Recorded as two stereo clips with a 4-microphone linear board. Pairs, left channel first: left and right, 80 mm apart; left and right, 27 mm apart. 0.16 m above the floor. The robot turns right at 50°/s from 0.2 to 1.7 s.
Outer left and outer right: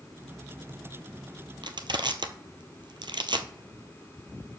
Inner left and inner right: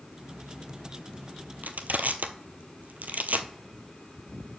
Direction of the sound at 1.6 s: 75° right (ahead or behind).